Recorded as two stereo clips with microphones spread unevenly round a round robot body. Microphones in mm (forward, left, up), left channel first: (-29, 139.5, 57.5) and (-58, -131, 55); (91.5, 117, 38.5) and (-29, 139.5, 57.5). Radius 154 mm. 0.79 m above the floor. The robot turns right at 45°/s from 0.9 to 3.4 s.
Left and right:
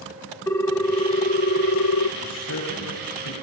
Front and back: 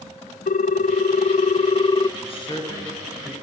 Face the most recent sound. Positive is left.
turn(degrees=80)